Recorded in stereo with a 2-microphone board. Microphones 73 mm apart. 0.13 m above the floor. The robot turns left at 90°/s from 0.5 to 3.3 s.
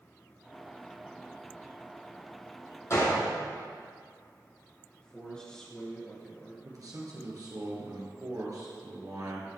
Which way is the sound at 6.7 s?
55° right (ahead or behind).